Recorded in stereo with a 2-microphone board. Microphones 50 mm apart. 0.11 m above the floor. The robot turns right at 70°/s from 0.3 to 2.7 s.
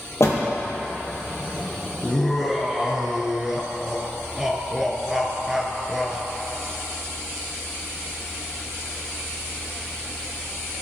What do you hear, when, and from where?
0.2 s a door slam: 65° left (ahead or behind), 1.8 m
2.0 s laughter: 150° left, 1.2 m; by 6.2 s 165° right, 1.2 m